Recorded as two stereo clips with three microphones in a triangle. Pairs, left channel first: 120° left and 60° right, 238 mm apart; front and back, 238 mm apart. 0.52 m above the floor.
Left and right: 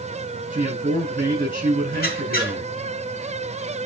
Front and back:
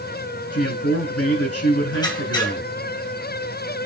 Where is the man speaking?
5° right, 6.5 m.